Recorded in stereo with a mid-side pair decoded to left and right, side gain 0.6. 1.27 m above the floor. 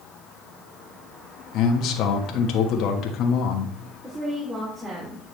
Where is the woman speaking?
25° right, 3.5 m.